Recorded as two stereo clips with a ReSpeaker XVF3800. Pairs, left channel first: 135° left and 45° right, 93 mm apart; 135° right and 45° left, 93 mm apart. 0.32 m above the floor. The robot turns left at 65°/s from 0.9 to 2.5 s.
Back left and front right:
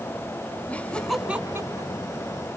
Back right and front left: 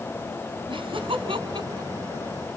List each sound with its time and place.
0.7 s laughter: 60° left, 3 m; by 1.9 s 5° right, 3 m